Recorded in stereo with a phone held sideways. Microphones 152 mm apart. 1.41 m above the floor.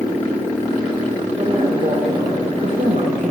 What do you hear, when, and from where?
1.4 s a woman speaking: 35° right (ahead or behind), 3.5 m; by 3.3 s 65° right (ahead or behind), 1.7 m